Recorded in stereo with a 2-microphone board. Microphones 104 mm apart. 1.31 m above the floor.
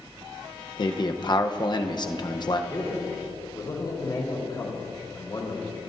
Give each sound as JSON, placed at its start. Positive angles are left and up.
{"t": 0.8, "sound": "a man speaking", "side_deg": 40, "distance_m": 0.9}
{"t": 2.7, "sound": "a man speaking", "side_deg": 35, "distance_m": 3.5}